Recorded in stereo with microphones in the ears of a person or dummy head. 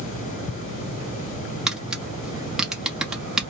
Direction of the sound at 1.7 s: Centre (ahead or behind).